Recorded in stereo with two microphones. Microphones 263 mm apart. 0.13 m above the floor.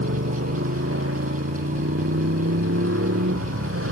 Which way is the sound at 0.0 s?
55° right (ahead or behind).